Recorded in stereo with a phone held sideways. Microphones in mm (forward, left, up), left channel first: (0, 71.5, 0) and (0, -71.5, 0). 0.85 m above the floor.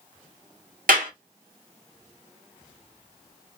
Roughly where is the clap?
Right.